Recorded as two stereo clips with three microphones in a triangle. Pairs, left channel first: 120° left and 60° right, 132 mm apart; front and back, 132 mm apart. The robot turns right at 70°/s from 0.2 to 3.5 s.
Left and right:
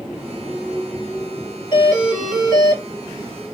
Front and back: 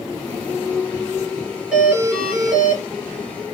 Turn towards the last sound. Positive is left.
turn(degrees=-135)